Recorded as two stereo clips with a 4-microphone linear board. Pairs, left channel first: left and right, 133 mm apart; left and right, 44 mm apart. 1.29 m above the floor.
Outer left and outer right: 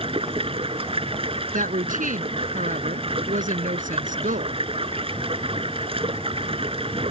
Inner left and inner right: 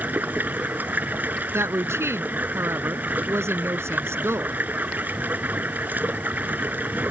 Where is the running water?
45° right (ahead or behind).